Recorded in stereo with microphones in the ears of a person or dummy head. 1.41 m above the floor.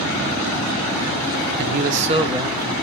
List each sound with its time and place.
1.6 s a man speaking: 55° right (ahead or behind), 1.0 m; by 2.7 s 10° right (ahead or behind), 1.7 m